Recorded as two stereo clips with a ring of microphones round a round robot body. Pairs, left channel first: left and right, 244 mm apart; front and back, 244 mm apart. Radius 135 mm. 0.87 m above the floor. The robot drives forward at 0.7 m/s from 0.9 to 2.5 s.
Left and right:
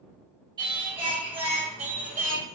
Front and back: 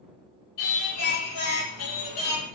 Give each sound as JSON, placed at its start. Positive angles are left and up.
{"t": 0.6, "sound": "singing", "azimuth_deg": -20, "distance_m": 2.0}